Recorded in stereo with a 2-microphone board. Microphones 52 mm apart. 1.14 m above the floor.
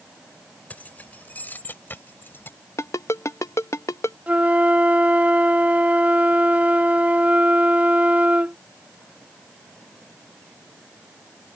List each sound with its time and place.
0.7 s keys jangling: 30° left (ahead or behind); by 2.6 s 45° left (ahead or behind)
2.8 s a ringtone: 70° left (ahead or behind)
4.3 s a flute: 30° right (ahead or behind)